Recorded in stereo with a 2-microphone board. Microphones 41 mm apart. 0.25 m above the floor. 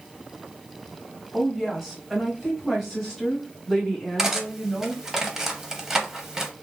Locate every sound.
1.3 s a woman speaking: 10° right (ahead or behind), 1.3 m; by 5.0 s 5° left (ahead or behind), 2 m
4.2 s cutlery clinking: 10° right (ahead or behind), 0.6 m